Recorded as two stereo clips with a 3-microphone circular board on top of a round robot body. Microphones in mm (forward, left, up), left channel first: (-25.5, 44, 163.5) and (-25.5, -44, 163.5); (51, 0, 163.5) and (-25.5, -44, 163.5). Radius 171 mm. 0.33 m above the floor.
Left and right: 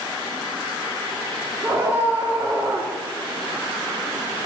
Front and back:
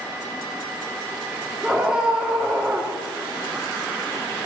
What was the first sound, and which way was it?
A scream, 80° right.